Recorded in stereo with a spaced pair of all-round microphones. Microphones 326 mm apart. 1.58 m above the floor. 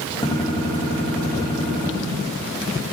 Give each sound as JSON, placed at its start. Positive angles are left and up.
{"t": 0.2, "sound": "a gunshot", "side_deg": 15, "distance_m": 1.8}